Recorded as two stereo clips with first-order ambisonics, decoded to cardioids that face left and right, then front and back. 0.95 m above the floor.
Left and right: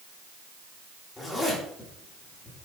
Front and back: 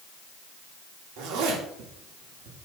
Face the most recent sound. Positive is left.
turn(degrees=165)